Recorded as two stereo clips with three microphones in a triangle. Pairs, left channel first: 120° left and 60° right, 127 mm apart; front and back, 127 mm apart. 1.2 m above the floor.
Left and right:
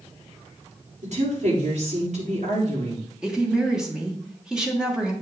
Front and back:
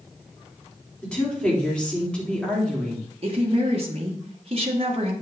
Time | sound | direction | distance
1.0 | a woman speaking | 80° right | 3.5 m
3.2 | a woman speaking | 145° right | 1.4 m